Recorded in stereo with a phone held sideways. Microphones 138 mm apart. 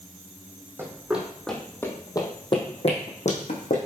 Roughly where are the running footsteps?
Centre.